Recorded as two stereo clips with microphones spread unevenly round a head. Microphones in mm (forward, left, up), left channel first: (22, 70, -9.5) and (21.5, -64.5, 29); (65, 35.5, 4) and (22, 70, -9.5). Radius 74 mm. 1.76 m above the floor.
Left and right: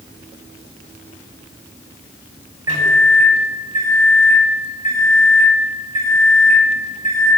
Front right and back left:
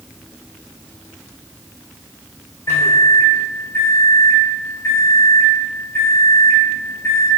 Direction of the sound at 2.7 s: 60° right.